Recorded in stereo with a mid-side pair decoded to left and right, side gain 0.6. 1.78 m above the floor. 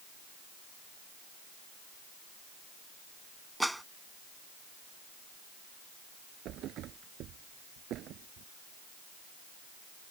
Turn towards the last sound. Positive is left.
turn(degrees=-60)